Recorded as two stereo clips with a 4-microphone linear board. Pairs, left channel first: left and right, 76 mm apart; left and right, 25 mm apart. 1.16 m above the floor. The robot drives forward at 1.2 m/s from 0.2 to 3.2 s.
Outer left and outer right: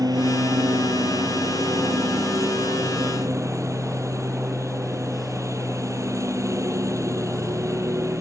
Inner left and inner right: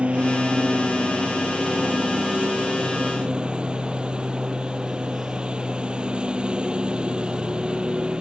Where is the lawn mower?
60° right (ahead or behind); by 8.2 s 45° right (ahead or behind).